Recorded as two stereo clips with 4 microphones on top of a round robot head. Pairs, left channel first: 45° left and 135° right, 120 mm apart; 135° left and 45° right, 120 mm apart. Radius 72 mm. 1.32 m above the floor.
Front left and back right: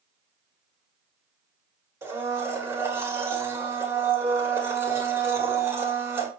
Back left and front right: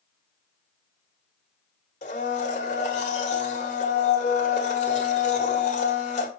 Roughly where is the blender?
Behind left.